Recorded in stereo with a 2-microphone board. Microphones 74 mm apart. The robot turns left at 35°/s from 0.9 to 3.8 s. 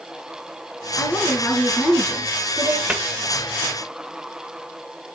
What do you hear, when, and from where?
1.0 s a woman speaking: 45° left, 3.5 m; by 2.8 s 20° right, 3.5 m
2.9 s a cupboard door: 15° right (ahead or behind), 1.4 m